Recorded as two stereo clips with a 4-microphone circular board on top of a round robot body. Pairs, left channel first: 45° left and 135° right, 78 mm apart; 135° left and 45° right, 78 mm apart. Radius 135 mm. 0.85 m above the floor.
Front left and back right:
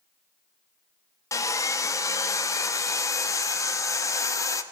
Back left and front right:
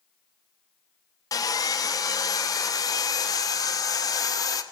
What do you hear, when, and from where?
1.3 s sawing: 95° left, 1.0 m